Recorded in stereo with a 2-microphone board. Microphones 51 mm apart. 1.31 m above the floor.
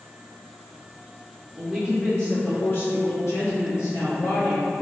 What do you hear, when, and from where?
1.6 s a woman speaking: 15° right (ahead or behind), 0.9 m; by 4.7 s 55° left (ahead or behind), 1.7 m